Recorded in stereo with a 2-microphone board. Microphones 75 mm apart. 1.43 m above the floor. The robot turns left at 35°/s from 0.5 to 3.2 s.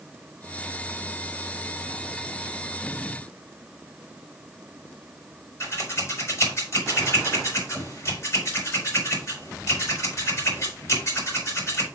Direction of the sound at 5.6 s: 40° left (ahead or behind).